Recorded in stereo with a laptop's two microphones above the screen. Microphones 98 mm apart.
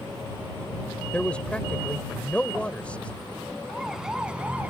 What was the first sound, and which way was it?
A man speaking, 10° left (ahead or behind).